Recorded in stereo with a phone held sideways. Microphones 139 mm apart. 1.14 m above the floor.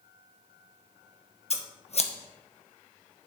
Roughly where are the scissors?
Left.